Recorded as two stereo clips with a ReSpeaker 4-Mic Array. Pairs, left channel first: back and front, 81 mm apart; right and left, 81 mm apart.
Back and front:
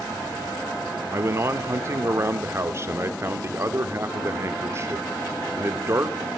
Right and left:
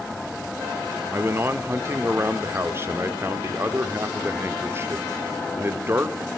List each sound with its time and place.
1.1 s a man speaking: 45° left, 1.6 m